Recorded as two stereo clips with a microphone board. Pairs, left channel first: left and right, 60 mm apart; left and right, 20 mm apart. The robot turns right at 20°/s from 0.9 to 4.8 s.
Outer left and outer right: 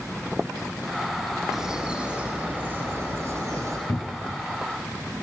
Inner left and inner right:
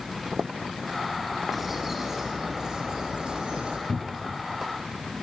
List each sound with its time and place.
1.5 s a bird: 170° right, 4.5 m; by 3.8 s 125° right, 4.5 m
3.9 s a cupboard door: 35° left (ahead or behind), 0.7 m; by 4.4 s 25° left (ahead or behind), 0.7 m